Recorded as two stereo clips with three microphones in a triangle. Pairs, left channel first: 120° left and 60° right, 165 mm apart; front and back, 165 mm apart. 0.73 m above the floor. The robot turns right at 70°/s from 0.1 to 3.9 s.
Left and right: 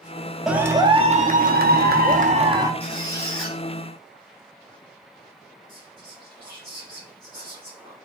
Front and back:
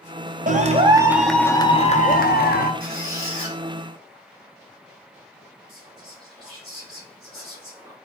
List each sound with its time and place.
0.5 s a clap: 145° right, 0.5 m; by 2.7 s 10° left, 0.5 m
2.8 s a squeak: 165° left, 1.5 m; by 3.6 s 140° right, 1.5 m
5.7 s whispering: 105° right, 1.8 m